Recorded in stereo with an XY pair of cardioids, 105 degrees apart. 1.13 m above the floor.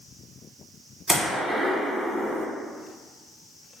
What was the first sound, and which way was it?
A gunshot, 15° right.